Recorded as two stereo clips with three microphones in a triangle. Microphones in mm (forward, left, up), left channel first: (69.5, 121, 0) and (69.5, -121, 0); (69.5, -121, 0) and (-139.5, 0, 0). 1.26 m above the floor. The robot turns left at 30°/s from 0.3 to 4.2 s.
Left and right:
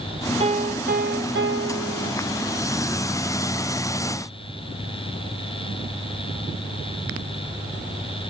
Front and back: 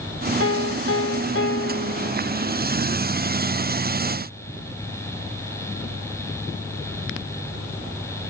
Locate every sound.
0.4 s a piano: 30° right; by 2.1 s 80° right